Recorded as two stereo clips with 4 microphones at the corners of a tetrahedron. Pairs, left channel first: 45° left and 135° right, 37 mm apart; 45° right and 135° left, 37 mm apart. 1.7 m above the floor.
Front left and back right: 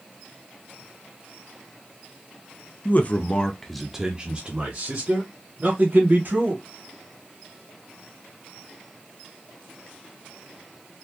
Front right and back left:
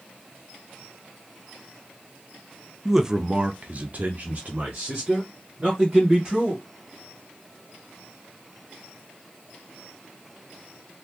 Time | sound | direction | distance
2.9 | a man speaking | 55° left | 0.7 m